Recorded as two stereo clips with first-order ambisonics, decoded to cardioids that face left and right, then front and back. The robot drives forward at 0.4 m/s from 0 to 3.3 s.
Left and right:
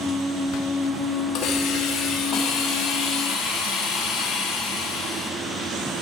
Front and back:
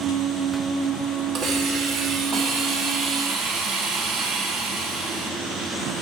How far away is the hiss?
About 2.5 m.